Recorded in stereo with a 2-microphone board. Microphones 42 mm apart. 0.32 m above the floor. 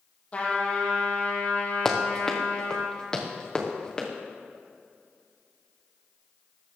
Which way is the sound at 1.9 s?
5° left (ahead or behind).